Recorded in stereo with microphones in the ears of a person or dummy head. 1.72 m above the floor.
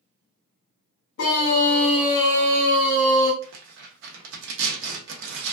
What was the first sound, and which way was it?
A scream, 70° left (ahead or behind).